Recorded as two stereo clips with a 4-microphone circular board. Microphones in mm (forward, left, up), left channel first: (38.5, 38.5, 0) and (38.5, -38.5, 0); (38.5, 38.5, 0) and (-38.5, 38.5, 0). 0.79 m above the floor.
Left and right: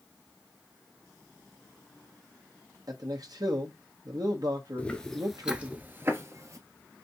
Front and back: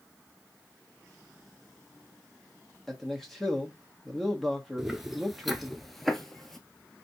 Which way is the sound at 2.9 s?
85° right.